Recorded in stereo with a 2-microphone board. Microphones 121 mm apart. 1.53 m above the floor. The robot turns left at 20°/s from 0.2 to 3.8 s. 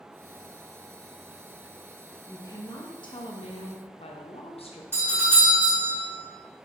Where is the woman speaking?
150° left, 0.6 m; by 4.8 s 120° left, 0.6 m.